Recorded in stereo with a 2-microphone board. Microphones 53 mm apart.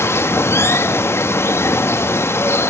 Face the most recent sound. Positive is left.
turn(degrees=55)  # may be behind; listen again after turning